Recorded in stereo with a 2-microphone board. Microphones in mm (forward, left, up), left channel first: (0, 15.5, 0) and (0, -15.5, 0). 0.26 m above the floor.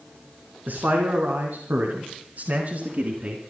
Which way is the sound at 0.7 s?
70° right (ahead or behind).